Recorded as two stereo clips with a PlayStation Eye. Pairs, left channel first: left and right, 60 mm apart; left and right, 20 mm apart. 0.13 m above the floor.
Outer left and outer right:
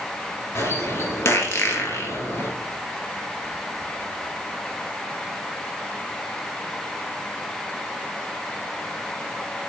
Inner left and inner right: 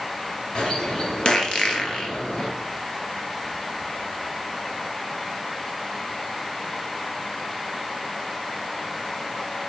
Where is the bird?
45° left (ahead or behind), 2 m.